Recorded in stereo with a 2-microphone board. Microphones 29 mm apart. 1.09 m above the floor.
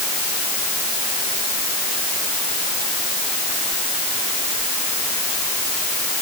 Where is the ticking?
I don't hear ticking.